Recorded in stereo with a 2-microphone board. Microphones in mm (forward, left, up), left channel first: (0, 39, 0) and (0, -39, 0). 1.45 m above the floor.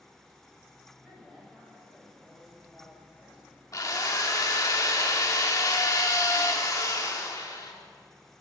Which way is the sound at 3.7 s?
45° left (ahead or behind).